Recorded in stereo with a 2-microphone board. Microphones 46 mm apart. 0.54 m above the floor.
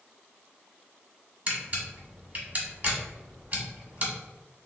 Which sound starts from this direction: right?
A camera shutter, at 1.5 s.